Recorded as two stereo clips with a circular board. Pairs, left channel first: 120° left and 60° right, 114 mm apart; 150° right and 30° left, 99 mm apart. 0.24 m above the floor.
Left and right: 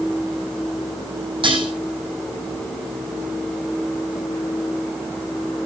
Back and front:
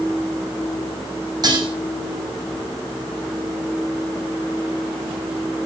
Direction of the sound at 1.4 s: 15° right.